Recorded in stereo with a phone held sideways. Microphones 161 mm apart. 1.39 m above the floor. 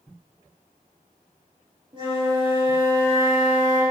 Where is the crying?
I don't hear crying.